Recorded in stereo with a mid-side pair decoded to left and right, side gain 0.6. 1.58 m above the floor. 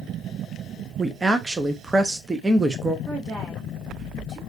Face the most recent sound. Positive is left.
turn(degrees=-30)